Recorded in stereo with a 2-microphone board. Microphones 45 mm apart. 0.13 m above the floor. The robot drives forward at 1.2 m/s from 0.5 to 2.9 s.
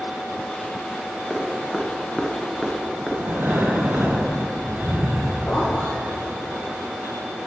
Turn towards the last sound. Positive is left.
turn(degrees=45)  # may be behind; listen again after turning